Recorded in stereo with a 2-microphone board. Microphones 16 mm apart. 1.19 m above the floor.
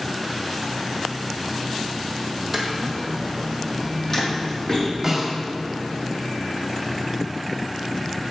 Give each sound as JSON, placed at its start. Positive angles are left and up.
{"t": 2.5, "sound": "footsteps", "side_deg": -5, "distance_m": 1.9}
{"t": 5.0, "sound": "a snare drum", "side_deg": -15, "distance_m": 2.5}